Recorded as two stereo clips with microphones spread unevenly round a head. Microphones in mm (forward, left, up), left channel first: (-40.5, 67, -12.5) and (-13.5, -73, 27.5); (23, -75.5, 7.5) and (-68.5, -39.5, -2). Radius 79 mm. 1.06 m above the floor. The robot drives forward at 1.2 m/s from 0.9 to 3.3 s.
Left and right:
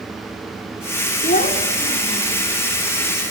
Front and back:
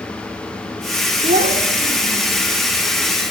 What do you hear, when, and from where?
1.2 s a child speaking: 140° left, 1.7 m; by 2.4 s 160° left, 3 m